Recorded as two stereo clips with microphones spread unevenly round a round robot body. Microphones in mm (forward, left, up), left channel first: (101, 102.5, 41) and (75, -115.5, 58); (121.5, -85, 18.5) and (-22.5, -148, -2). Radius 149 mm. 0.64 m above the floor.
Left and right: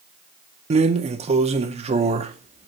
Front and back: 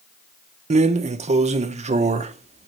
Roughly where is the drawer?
Behind right.